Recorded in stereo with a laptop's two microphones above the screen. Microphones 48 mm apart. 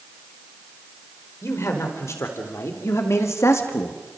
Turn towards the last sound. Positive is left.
turn(degrees=70)  # may be behind; listen again after turning